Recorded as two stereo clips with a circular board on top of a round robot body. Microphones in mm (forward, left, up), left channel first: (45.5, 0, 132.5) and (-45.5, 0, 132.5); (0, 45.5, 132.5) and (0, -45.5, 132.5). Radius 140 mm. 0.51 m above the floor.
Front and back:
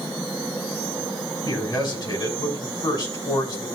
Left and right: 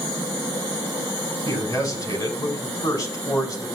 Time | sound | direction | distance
1.4 | a man speaking | 40° left | 5 m